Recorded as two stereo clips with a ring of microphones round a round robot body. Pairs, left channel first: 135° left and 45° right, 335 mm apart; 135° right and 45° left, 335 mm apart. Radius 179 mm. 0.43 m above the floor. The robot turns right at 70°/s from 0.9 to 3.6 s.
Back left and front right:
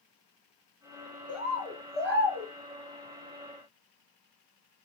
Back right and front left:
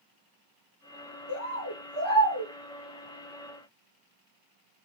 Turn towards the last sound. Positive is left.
turn(degrees=20)